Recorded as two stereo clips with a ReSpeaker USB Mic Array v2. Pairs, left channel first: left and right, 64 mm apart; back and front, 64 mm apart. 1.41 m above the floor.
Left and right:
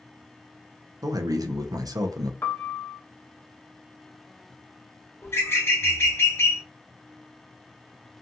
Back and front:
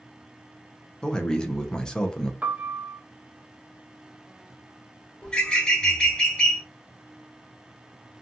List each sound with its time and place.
1.0 s a man speaking: 100° right, 0.5 m
2.4 s a piano: 55° left, 0.5 m
5.2 s a bird: 110° left, 0.9 m